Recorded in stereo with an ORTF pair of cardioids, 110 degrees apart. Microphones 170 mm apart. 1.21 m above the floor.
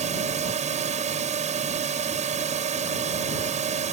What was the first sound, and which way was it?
A drone, 45° right.